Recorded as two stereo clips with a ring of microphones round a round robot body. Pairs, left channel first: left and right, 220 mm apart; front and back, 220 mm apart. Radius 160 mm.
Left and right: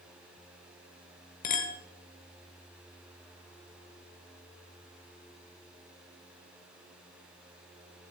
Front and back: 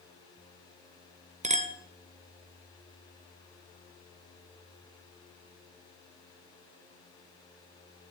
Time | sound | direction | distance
1.4 | a clink | 130° left | 0.9 m